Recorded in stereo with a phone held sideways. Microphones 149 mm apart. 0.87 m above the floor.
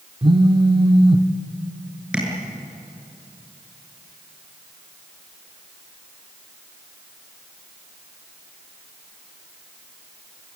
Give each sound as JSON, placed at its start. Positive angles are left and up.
{"t": 0.2, "sound": "a phone buzzing", "side_deg": -35, "distance_m": 0.9}
{"t": 2.1, "sound": "tapping", "side_deg": -5, "distance_m": 8.0}